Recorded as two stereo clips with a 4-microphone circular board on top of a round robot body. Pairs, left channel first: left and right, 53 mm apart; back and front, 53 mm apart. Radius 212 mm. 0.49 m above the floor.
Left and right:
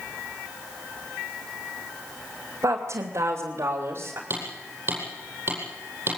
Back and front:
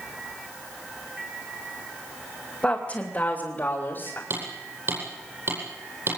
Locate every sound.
2.6 s a woman speaking: 110° right, 3 m; by 4.2 s 130° right, 3.5 m
4.3 s hammering: 40° right, 9.5 m